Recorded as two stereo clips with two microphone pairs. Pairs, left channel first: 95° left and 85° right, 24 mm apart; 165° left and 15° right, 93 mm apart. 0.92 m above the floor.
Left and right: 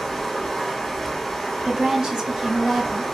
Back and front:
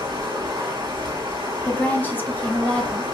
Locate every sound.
0.0 s running water: 10° left, 0.9 m
1.6 s a woman speaking: 130° right, 0.7 m